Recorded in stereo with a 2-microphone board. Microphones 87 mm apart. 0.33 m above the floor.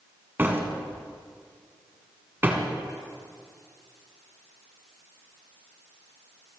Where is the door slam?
25° right (ahead or behind), 1.9 m.